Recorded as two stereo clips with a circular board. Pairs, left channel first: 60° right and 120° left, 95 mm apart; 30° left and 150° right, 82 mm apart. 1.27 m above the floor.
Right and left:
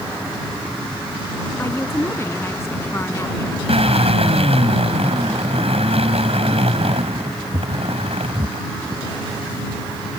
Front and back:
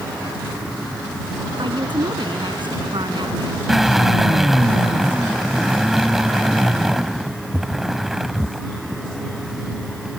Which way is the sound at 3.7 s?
125° left.